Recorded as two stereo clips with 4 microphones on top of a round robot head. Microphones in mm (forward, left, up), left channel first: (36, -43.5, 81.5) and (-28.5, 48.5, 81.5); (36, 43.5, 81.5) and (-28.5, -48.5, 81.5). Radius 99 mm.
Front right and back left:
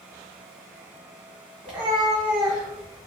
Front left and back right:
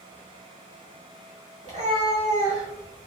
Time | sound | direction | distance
1.6 | a cat meowing | 155° right | 1.3 m